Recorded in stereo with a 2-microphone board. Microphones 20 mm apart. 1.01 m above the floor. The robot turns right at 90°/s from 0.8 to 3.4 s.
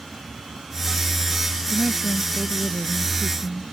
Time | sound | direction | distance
1.7 | a woman speaking | 110° right | ?